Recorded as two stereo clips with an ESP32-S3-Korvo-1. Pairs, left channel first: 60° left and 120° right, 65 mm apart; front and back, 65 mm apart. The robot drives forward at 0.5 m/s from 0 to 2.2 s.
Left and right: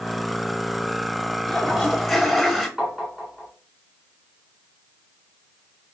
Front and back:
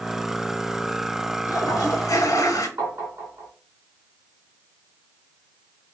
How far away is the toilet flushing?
About 1.1 m.